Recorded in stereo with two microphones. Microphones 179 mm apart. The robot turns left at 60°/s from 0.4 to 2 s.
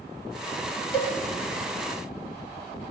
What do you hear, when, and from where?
0.9 s a cowbell: 30° left (ahead or behind), 0.5 m; by 1.1 s 35° left (ahead or behind), 0.5 m